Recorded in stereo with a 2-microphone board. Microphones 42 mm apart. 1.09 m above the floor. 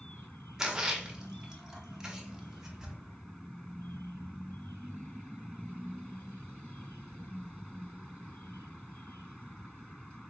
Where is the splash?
15° right (ahead or behind), 0.6 m.